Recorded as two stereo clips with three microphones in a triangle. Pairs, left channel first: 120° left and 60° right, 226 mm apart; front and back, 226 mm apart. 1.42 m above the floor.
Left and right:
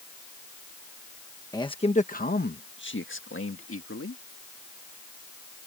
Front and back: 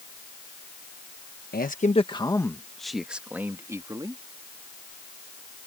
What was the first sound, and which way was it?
A man speaking, 45° left.